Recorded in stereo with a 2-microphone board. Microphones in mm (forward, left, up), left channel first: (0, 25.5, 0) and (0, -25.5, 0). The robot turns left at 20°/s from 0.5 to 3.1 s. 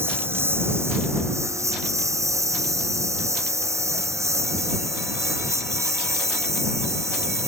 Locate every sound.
0.0 s a lawn mower: 50° right (ahead or behind); by 7.5 s 75° right (ahead or behind)